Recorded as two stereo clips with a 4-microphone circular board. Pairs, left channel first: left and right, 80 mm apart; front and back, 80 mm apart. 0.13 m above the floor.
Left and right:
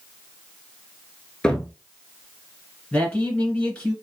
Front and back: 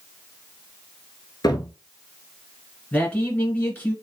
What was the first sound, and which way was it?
A cupboard door, 15° left.